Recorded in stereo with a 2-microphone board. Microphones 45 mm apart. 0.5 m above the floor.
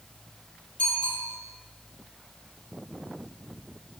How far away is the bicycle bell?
About 9.5 m.